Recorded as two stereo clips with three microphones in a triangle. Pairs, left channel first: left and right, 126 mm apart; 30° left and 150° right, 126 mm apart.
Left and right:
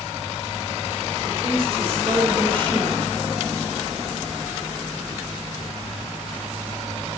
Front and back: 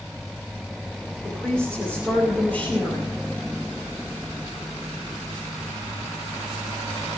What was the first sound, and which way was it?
A woman speaking, 55° right.